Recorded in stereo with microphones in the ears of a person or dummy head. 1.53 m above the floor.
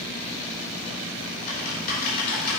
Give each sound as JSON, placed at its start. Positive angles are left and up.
{"t": 1.5, "sound": "typing on a keyboard", "side_deg": 45, "distance_m": 3.5}